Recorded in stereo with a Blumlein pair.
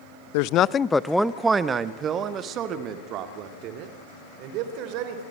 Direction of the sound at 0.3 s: 50° left.